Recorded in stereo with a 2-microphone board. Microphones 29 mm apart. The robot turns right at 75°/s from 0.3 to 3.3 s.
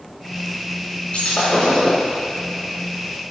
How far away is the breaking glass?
About 3 m.